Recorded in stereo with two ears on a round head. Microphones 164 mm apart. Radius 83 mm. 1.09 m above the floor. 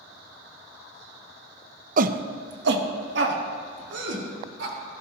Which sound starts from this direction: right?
A shout, at 2.0 s.